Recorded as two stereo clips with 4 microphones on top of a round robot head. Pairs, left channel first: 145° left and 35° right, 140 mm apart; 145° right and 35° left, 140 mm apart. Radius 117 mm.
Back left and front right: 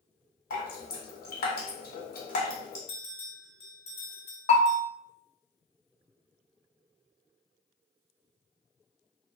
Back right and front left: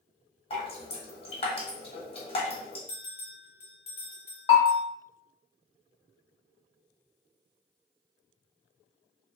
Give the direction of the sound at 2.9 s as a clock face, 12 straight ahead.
6 o'clock.